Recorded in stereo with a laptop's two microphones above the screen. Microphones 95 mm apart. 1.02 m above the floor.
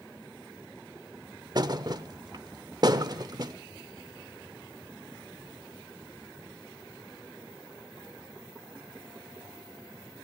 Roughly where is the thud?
Right.